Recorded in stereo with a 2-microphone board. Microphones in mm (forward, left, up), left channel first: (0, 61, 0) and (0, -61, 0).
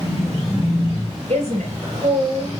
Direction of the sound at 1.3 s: 60° right (ahead or behind).